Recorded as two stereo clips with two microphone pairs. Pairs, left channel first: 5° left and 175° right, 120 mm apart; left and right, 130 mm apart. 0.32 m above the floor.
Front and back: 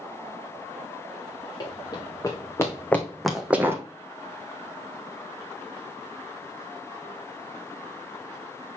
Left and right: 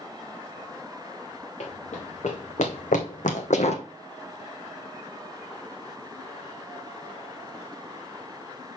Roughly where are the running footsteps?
Ahead left.